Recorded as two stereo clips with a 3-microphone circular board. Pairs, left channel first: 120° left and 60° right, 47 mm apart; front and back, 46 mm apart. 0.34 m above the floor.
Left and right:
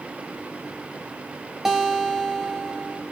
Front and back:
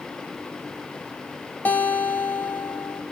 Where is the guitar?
20° left, 1.0 m.